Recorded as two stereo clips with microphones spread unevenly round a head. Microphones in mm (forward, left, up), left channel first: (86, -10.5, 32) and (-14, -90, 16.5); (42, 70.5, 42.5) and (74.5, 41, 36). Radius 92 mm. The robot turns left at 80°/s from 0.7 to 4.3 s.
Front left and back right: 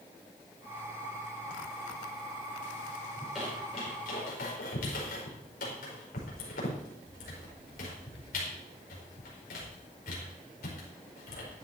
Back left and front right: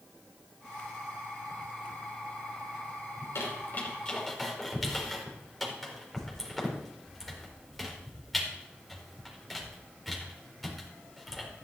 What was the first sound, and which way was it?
A squeak, 145° left.